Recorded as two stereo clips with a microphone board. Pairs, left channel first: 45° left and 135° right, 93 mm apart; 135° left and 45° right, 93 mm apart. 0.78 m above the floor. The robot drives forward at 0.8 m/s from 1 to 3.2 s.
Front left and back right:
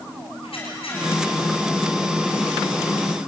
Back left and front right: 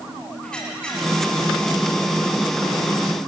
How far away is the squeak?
About 8 m.